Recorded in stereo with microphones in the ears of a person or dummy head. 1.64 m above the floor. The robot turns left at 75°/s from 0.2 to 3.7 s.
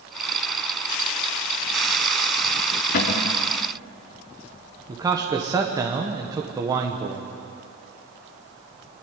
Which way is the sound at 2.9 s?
135° left.